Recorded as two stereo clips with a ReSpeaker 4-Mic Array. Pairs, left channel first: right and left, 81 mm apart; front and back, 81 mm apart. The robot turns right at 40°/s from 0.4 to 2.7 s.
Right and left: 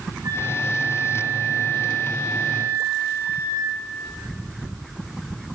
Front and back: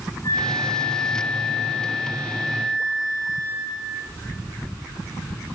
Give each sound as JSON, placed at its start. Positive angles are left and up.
{"t": 0.2, "sound": "a flute", "azimuth_deg": 40, "distance_m": 9.0}